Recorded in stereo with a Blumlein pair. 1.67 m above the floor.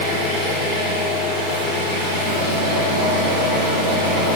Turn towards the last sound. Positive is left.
turn(degrees=-70)